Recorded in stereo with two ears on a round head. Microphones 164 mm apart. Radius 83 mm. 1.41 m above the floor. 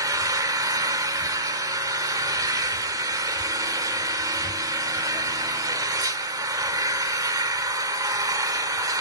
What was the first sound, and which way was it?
An engine running, 20° right (ahead or behind).